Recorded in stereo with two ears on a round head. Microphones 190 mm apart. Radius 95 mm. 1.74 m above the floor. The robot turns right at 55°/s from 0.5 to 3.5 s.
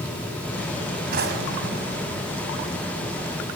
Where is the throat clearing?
I don't hear throat clearing.